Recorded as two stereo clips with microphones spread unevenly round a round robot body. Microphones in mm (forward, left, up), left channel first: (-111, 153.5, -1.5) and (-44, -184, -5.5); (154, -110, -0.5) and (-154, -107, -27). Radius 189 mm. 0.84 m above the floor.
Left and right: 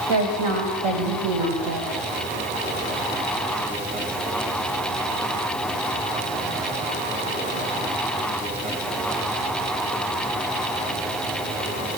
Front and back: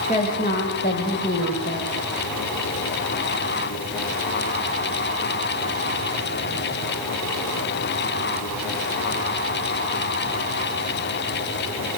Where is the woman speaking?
70° right, 5.5 m; by 2.0 s 45° right, 4.5 m.